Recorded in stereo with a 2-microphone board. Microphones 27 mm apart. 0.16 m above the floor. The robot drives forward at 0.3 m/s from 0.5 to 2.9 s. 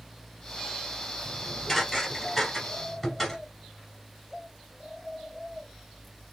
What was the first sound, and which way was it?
Dishes clattering, 10° left (ahead or behind).